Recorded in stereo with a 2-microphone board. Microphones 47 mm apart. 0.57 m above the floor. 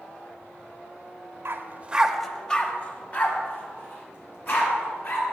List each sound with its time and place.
1.4 s a dog barking: 60° right (ahead or behind), 0.6 m; by 5.2 s 50° left (ahead or behind), 3 m